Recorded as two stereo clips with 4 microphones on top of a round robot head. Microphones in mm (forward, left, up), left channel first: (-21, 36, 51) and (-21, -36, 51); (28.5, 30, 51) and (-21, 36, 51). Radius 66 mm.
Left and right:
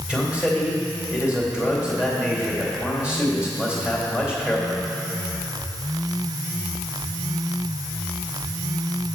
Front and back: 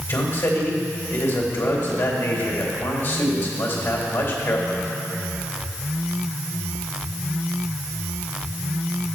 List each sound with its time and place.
0.1 s a man speaking: 15° right, 2.5 m